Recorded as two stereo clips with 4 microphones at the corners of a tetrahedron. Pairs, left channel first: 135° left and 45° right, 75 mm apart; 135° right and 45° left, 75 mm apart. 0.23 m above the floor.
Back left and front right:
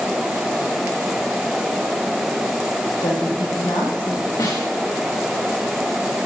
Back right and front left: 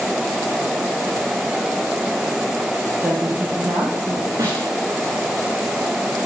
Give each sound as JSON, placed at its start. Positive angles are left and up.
{"t": 3.0, "sound": "a woman speaking", "azimuth_deg": 110, "distance_m": 6.5}
{"t": 4.4, "sound": "a snare drum", "azimuth_deg": 90, "distance_m": 9.0}